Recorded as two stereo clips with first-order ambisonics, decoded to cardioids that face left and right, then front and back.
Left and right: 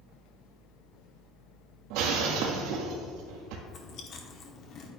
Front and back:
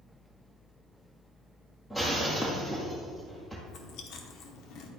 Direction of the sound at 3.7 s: 35° left.